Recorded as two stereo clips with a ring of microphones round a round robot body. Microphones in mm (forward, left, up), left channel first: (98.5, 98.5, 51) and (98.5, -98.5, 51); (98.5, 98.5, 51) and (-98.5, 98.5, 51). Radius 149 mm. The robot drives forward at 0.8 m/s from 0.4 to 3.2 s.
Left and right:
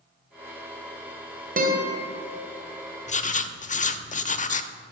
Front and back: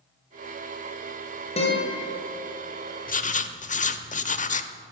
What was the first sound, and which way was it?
A guitar, 55° right.